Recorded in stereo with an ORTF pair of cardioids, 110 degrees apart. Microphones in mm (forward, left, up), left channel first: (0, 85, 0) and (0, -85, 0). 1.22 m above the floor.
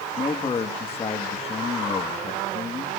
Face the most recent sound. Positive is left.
turn(degrees=35)